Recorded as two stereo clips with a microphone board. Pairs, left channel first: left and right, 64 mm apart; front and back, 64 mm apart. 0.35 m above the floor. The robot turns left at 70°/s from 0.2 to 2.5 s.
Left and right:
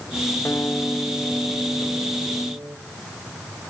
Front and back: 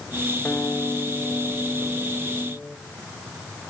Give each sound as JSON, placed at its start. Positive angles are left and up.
{"t": 0.5, "sound": "a guitar", "azimuth_deg": 60, "distance_m": 1.4}